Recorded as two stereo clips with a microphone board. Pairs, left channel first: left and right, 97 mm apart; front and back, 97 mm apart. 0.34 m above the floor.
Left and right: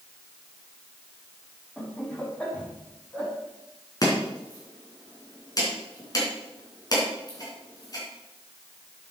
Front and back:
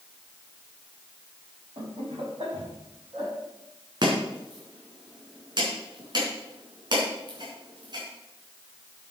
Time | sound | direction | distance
1.8 | laughter | 170° left | 3 m
4.0 | chopping | 140° left | 4 m